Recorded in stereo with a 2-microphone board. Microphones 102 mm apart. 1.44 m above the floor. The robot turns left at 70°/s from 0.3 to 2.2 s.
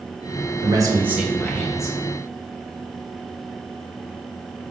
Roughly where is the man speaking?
Behind right.